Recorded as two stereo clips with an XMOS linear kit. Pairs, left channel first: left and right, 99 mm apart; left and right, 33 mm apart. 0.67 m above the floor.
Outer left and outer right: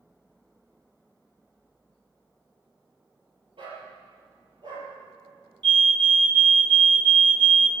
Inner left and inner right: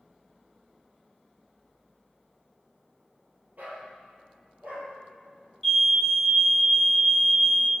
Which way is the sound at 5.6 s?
10° left (ahead or behind).